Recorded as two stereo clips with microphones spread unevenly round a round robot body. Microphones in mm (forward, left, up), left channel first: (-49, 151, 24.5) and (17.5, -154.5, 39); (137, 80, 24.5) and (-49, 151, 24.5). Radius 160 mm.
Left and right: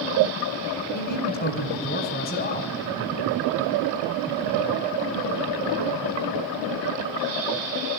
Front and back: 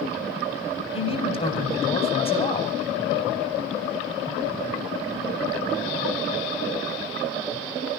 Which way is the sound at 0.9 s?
40° left.